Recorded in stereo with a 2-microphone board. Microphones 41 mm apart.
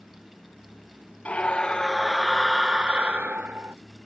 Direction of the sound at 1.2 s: 30° left (ahead or behind).